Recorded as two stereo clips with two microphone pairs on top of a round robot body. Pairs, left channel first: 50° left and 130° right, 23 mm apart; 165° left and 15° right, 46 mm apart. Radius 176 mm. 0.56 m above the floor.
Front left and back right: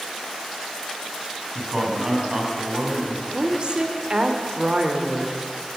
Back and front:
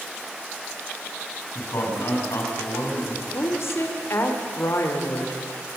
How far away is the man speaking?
About 6 m.